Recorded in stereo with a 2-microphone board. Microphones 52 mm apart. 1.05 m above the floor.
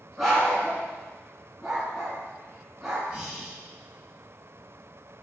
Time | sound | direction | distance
0.2 | a dog barking | 5° right (ahead or behind) | 2.5 m
3.1 | breathing | 15° right (ahead or behind) | 1.8 m